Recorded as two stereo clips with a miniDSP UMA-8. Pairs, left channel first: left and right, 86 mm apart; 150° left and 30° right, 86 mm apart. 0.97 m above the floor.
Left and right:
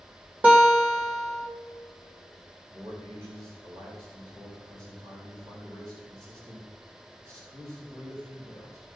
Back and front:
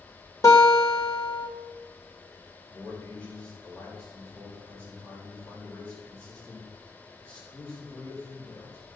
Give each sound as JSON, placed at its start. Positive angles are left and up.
{"t": 0.4, "sound": "a guitar", "azimuth_deg": -160, "distance_m": 2.5}
{"t": 2.7, "sound": "a man speaking", "azimuth_deg": -135, "distance_m": 4.0}